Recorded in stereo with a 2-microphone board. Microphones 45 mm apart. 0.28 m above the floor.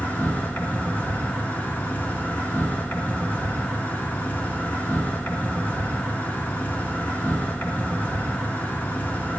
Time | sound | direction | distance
0.0 | an insect | 45° left (ahead or behind) | 3 m